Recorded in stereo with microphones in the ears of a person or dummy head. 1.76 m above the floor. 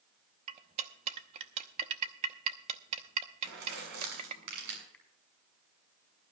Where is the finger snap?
5° left (ahead or behind), 4.5 m.